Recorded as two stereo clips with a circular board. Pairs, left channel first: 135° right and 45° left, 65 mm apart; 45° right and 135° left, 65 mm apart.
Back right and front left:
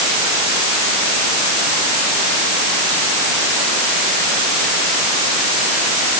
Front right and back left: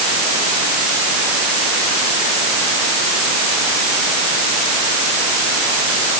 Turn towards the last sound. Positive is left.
No sound to turn to.